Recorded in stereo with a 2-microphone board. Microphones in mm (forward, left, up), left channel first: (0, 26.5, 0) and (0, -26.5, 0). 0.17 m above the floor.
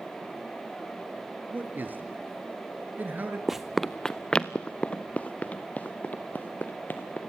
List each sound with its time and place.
1.5 s a man speaking: 35° right (ahead or behind), 3 m
3.5 s running footsteps: 10° right (ahead or behind), 0.7 m; by 7.2 s 35° left (ahead or behind), 3 m